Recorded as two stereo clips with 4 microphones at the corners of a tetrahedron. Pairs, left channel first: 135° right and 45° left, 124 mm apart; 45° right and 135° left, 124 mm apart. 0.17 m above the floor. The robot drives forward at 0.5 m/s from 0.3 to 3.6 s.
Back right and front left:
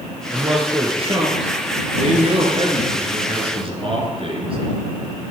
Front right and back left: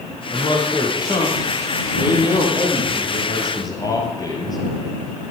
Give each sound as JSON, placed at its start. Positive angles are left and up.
{"t": 0.3, "sound": "a man speaking", "azimuth_deg": 5, "distance_m": 4.5}